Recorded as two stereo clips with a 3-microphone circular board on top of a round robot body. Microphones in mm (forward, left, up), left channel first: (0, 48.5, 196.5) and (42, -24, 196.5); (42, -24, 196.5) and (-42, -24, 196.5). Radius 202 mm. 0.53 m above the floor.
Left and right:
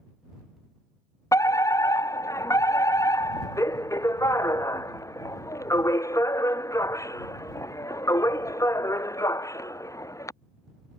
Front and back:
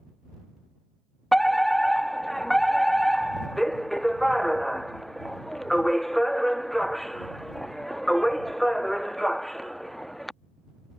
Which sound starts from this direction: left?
A fire alarm, at 1.3 s.